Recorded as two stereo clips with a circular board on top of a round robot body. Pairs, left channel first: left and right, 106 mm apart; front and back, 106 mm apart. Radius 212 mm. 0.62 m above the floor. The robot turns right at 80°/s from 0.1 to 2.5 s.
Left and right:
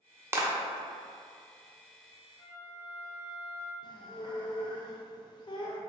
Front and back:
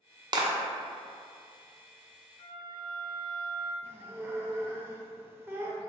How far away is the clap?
About 0.6 m.